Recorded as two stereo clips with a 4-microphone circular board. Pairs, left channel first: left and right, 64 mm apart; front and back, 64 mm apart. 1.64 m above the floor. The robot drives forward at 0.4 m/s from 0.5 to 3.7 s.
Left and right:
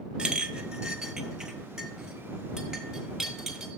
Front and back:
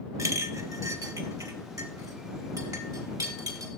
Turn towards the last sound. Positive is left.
turn(degrees=-175)